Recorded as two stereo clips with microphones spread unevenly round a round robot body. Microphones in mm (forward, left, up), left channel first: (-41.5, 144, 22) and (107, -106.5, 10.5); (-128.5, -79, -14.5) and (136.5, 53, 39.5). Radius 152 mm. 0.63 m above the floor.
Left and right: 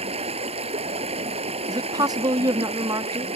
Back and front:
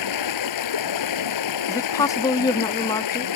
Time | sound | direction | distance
0.0 | running water | 130° right | ?
1.7 | a woman speaking | 115° right | ?